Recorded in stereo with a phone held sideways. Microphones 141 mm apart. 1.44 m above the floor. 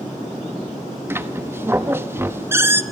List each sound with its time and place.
1.1 s a squeak: 15° right (ahead or behind), 0.8 m